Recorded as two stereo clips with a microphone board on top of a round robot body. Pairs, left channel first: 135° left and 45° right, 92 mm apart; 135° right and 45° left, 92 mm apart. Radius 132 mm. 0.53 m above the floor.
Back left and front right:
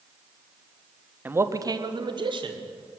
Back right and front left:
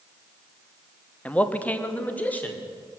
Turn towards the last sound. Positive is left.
turn(degrees=-60)